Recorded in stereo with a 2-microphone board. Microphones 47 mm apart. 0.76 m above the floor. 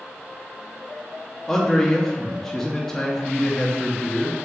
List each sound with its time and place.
1.5 s a man speaking: 10° left (ahead or behind), 0.5 m